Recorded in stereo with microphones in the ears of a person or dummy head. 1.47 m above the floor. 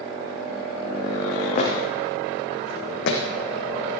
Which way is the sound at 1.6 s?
45° left (ahead or behind).